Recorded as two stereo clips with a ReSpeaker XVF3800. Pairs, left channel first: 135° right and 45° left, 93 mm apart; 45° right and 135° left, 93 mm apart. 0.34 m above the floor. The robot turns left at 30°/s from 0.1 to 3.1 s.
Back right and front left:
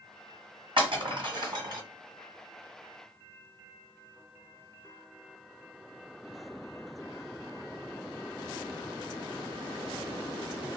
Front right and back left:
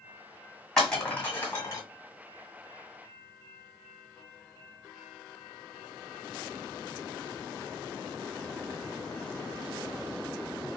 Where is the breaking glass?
40° left, 1.7 m; by 1.8 s 5° left, 1.7 m.